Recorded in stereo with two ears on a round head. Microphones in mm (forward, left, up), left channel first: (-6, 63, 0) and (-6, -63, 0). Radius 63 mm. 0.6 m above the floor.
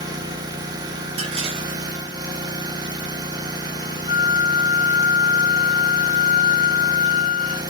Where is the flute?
40° right (ahead or behind), 0.6 m.